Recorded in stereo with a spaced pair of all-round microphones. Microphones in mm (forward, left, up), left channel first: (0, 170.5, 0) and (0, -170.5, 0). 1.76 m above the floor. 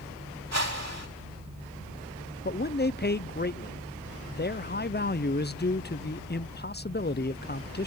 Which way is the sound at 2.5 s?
30° left (ahead or behind).